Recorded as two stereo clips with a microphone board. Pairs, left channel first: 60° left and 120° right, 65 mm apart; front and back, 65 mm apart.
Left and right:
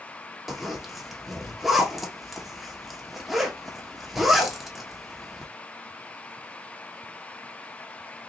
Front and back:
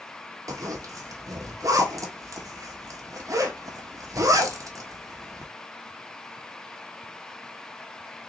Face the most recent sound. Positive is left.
turn(degrees=155)